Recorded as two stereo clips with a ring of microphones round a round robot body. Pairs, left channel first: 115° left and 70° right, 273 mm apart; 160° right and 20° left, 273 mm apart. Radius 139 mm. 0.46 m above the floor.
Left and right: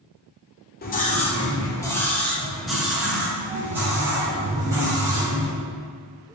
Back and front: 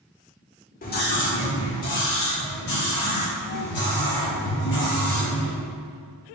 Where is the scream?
155° left, 1.5 m; by 5.5 s 145° right, 5 m.